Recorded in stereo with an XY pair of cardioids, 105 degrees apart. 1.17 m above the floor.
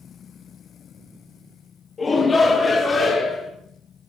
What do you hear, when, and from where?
2.0 s a shout: 40° left, 1.5 m; by 3.5 s 50° left, 3 m